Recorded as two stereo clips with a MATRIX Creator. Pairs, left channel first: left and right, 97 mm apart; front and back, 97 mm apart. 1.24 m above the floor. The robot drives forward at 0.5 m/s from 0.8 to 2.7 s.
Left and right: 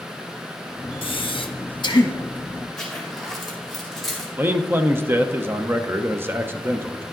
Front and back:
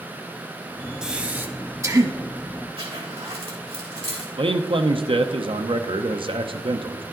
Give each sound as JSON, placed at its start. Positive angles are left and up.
{"t": 1.0, "sound": "breathing", "azimuth_deg": 100, "distance_m": 0.9}
{"t": 2.8, "sound": "a zipper", "azimuth_deg": 175, "distance_m": 2.5}
{"t": 4.4, "sound": "a man speaking", "azimuth_deg": -155, "distance_m": 0.7}